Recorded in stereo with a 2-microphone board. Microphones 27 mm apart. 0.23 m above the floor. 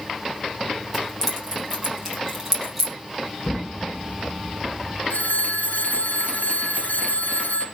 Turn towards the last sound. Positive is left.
turn(degrees=75)  # may be behind; listen again after turning